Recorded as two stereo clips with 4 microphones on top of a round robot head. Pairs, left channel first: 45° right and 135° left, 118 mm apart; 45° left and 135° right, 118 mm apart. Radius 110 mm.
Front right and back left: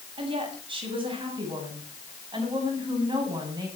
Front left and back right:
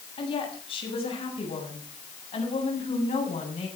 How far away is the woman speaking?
About 7.5 m.